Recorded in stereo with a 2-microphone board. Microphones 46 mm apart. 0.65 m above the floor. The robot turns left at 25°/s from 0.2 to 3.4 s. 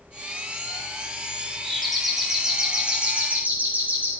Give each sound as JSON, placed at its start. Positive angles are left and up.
{"t": 1.6, "sound": "a doorbell", "azimuth_deg": 10, "distance_m": 3.0}